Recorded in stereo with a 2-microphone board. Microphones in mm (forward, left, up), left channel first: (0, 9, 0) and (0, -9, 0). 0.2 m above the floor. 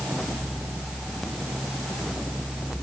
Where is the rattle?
I don't hear a rattle.